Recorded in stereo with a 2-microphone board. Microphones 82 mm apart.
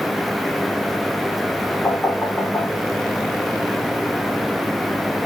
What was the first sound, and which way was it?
Knocking, 30° left (ahead or behind).